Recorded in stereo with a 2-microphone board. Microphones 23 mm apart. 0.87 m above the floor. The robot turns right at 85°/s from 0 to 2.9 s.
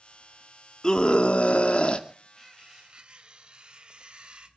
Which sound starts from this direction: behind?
Cutlery clinking, at 2.4 s.